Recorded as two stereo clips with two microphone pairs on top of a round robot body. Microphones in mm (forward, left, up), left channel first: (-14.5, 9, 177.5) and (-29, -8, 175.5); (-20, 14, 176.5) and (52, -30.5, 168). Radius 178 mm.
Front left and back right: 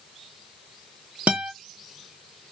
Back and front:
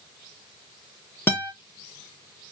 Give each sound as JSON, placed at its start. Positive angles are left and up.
{"t": 1.3, "sound": "a guitar", "azimuth_deg": -145, "distance_m": 0.5}